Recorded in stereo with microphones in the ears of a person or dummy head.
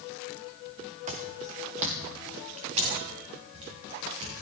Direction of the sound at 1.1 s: 35° right (ahead or behind).